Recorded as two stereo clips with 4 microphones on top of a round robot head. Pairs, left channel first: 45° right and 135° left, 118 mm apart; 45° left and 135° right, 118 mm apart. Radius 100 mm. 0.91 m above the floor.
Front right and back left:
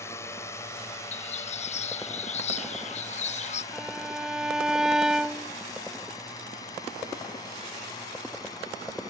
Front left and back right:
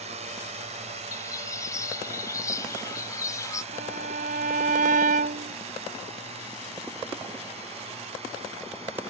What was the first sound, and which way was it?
A drone, 110° right.